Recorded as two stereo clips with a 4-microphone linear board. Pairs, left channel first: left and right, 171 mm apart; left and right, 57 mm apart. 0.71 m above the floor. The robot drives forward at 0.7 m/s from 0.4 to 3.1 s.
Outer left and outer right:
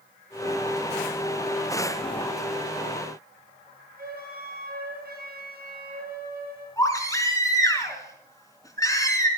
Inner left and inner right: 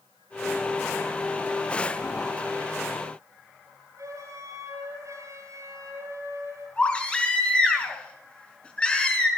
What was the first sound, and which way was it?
A flute, 65° right (ahead or behind).